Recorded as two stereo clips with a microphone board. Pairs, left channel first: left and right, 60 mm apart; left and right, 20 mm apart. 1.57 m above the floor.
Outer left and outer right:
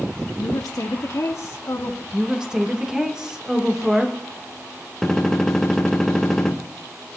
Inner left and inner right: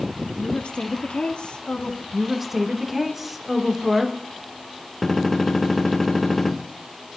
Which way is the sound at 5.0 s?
5° left (ahead or behind).